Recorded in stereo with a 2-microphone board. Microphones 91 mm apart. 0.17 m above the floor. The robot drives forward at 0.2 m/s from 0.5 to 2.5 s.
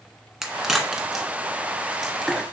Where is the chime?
I don't hear a chime.